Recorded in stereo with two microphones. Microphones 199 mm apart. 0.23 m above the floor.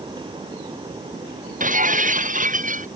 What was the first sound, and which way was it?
Breaking glass, 40° right (ahead or behind).